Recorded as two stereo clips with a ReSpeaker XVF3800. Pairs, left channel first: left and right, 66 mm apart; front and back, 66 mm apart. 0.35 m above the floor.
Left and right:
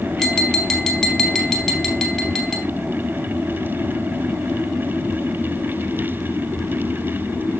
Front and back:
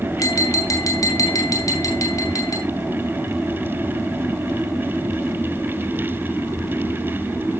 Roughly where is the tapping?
Ahead.